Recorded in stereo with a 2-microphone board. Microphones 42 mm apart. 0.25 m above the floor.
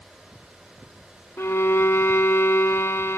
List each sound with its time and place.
1.4 s a violin: 70° left (ahead or behind), 0.7 m